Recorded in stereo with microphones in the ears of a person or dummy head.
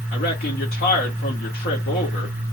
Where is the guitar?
No guitar in this recording.